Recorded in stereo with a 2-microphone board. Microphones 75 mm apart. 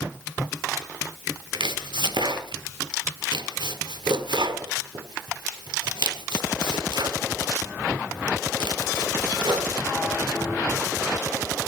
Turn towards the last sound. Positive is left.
turn(degrees=-80)